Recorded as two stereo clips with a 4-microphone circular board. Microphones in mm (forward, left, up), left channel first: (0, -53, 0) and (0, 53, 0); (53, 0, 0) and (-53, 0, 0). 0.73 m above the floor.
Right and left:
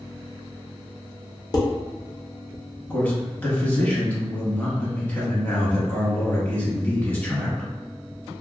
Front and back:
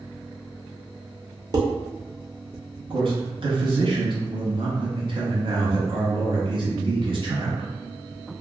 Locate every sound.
1.5 s dishes clattering: 135° right, 0.6 m
2.9 s a man speaking: 160° right, 0.9 m